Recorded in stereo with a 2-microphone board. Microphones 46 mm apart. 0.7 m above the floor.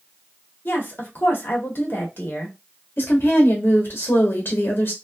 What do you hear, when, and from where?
0.7 s a woman speaking: 50° left (ahead or behind), 1.1 m
3.0 s a woman speaking: 55° left (ahead or behind), 1.1 m